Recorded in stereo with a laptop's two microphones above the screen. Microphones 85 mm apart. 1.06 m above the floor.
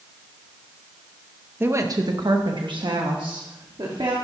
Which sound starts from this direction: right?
A woman speaking, at 1.6 s.